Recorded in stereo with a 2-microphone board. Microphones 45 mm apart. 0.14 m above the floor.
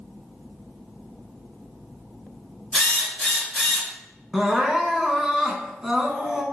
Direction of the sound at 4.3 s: 10° right (ahead or behind).